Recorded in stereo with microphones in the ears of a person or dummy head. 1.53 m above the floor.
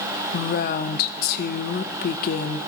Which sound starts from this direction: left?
A woman speaking, at 0.3 s.